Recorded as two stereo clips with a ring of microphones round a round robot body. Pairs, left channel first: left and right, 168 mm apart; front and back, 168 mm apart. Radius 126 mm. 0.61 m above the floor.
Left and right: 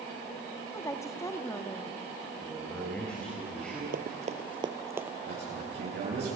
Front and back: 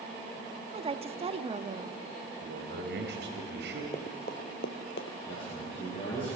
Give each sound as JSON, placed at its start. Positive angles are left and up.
{"t": 0.7, "sound": "a woman speaking", "azimuth_deg": 155, "distance_m": 1.1}
{"t": 2.4, "sound": "a man speaking", "azimuth_deg": 175, "distance_m": 4.0}
{"t": 3.9, "sound": "running footsteps", "azimuth_deg": -65, "distance_m": 1.1}
{"t": 5.3, "sound": "a man speaking", "azimuth_deg": -70, "distance_m": 9.5}